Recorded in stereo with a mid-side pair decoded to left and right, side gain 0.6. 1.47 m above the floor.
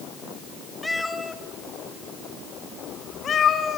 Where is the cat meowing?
10° left, 3.5 m; by 3.8 s 45° left, 4.5 m.